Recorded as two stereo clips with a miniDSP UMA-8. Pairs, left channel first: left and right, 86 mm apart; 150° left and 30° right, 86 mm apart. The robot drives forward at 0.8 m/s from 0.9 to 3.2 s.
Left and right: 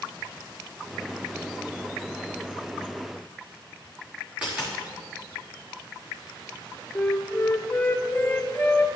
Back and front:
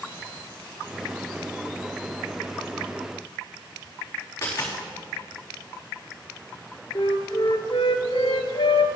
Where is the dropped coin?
165° right, 4.5 m.